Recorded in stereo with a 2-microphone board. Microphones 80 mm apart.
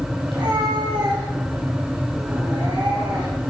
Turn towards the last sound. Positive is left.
turn(degrees=-65)  # may be behind; listen again after turning